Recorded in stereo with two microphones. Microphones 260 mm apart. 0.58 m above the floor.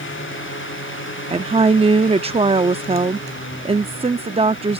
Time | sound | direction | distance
1.3 | a woman speaking | 25° right (ahead or behind) | ?